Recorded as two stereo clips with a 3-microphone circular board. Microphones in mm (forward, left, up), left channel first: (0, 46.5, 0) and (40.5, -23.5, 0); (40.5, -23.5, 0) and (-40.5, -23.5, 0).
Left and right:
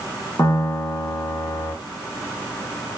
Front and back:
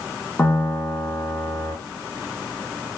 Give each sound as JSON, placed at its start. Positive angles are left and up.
{"t": 0.4, "sound": "a piano", "azimuth_deg": 65, "distance_m": 0.8}